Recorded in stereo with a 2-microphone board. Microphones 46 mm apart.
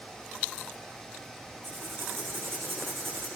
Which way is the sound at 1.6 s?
60° right (ahead or behind).